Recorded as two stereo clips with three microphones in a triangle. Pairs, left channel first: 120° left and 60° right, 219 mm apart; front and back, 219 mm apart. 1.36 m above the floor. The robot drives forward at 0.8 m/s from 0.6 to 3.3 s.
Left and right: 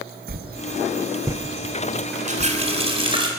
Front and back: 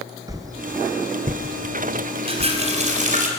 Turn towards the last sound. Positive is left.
turn(degrees=-130)